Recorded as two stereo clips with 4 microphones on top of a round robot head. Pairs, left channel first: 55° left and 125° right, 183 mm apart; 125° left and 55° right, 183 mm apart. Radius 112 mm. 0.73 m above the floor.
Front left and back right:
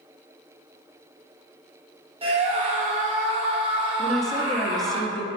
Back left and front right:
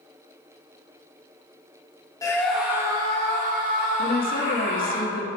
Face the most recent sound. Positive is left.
turn(degrees=140)